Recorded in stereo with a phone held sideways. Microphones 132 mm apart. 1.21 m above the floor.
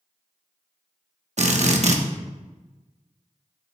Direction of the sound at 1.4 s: 60° right (ahead or behind).